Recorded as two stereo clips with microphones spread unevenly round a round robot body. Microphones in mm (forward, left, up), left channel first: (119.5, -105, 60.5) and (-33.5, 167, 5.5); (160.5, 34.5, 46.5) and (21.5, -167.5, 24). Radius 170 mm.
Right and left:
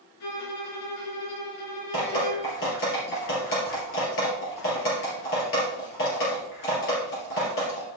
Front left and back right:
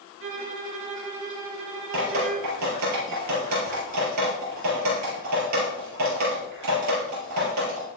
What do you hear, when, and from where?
0.2 s a violin: 90° right, 3.5 m
1.9 s dripping: 120° right, 4 m